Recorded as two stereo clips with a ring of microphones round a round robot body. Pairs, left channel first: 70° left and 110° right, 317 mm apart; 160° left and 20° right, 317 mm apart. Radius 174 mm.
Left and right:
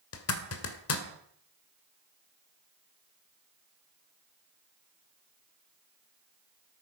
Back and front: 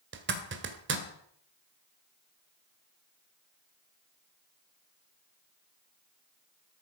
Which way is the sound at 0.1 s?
30° left.